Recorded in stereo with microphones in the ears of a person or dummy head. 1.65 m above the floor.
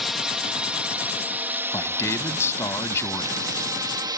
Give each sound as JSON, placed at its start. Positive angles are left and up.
{"t": 0.0, "sound": "a drone", "side_deg": 0}
{"t": 1.7, "sound": "a man speaking", "side_deg": 15}